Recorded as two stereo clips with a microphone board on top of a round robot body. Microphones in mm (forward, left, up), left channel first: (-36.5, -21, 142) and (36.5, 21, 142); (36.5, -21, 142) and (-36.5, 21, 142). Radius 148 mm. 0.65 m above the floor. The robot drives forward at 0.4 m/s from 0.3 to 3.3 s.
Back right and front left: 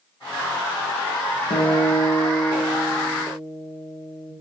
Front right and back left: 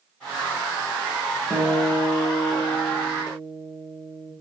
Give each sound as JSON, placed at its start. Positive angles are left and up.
{"t": 1.5, "sound": "a guitar", "azimuth_deg": -120, "distance_m": 2.0}